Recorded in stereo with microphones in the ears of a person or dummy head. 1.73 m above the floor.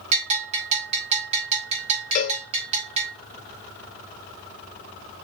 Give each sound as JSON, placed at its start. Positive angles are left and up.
{"t": 0.1, "sound": "a bell", "side_deg": -35, "distance_m": 4.5}
{"t": 2.1, "sound": "a cowbell", "side_deg": 45, "distance_m": 2.0}